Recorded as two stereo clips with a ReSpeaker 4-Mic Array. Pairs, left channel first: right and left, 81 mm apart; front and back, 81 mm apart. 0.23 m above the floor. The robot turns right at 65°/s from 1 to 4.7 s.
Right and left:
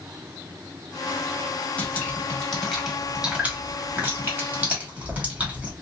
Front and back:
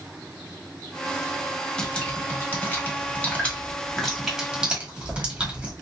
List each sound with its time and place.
1.8 s dripping: 60° right, 1.2 m; by 5.7 s 130° left, 1.2 m